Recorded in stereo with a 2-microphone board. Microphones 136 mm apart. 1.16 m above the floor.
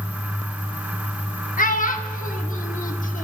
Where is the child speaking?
80° left, 1.5 m.